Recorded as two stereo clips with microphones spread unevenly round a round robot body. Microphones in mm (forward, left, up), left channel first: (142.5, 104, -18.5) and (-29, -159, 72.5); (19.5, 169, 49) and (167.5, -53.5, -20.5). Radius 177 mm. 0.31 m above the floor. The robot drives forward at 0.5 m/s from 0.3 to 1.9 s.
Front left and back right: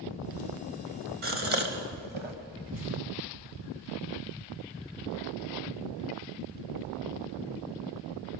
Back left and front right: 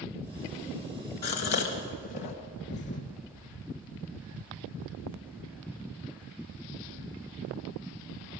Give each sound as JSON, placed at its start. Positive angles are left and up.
{"t": 1.2, "sound": "a gasp", "azimuth_deg": 165, "distance_m": 1.6}
{"t": 2.7, "sound": "a thud", "azimuth_deg": -175, "distance_m": 1.0}